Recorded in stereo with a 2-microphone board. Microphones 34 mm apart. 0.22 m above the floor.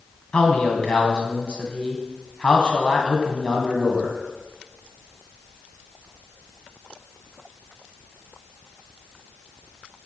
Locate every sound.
0.3 s a man speaking: 30° left (ahead or behind), 2.0 m